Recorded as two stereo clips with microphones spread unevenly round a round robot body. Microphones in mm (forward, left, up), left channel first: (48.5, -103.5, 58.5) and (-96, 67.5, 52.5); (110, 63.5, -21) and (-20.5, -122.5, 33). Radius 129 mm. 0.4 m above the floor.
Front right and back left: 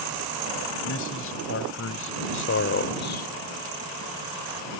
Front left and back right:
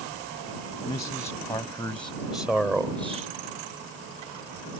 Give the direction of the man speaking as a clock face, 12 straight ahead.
1 o'clock.